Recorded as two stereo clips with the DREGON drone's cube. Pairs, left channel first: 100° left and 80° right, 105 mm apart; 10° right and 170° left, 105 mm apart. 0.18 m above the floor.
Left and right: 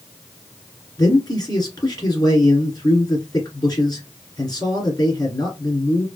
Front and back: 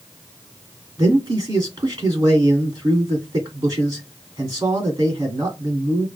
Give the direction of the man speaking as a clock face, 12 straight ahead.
8 o'clock.